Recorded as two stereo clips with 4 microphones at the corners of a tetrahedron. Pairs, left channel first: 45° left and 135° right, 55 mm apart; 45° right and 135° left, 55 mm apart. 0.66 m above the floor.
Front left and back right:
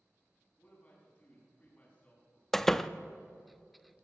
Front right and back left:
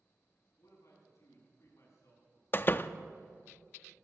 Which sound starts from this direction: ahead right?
A door slam, at 2.5 s.